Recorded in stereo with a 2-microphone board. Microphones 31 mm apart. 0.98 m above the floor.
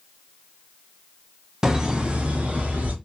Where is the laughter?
20° right (ahead or behind), 0.7 m; by 2.9 s 60° right (ahead or behind), 1.1 m.